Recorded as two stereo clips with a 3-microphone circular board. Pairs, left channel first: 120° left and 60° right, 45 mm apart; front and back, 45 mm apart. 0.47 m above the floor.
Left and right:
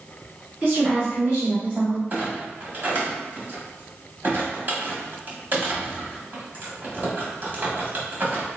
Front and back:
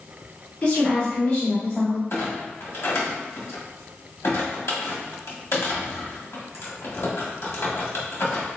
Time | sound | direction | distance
0.6 | a woman speaking | 20° right | 1.0 m
2.1 | a clunk | 15° right | 1.0 m